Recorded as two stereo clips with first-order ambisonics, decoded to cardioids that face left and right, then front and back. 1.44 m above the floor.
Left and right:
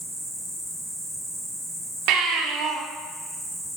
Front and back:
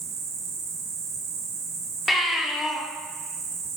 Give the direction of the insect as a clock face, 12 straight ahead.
6 o'clock.